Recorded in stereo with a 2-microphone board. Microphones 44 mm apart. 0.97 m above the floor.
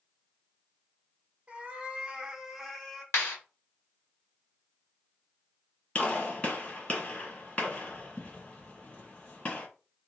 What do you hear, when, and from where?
1.5 s a cat meowing: 30° right (ahead or behind), 0.7 m; by 3.0 s 5° left (ahead or behind), 0.7 m
3.1 s a clap: 75° left (ahead or behind), 1.3 m
6.0 s a gunshot: 30° left (ahead or behind), 1.8 m